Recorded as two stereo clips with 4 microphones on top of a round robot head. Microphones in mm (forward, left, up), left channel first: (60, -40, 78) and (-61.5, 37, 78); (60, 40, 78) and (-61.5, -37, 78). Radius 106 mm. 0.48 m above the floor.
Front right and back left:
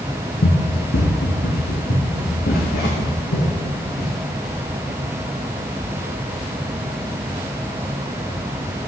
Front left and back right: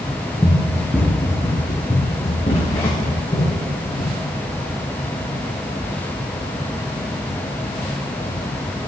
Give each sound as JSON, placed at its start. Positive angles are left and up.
{"t": 0.4, "sound": "running footsteps", "azimuth_deg": -50, "distance_m": 1.2}